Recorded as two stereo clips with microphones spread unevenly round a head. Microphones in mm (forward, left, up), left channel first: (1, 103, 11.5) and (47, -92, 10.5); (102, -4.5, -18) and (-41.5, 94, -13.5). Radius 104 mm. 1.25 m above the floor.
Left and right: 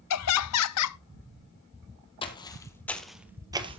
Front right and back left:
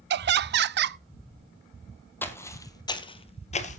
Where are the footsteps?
40° left, 2 m; by 3.8 s 30° right, 1.5 m.